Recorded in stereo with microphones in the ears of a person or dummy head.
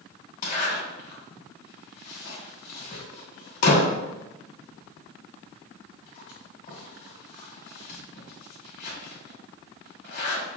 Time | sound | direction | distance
0.4 | a zipper | 50° left (ahead or behind) | 1.8 m